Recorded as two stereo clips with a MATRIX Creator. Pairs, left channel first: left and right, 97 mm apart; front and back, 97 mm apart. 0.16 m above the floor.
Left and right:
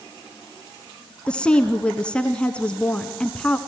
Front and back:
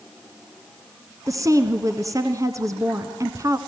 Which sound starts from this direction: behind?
A woman speaking, at 1.3 s.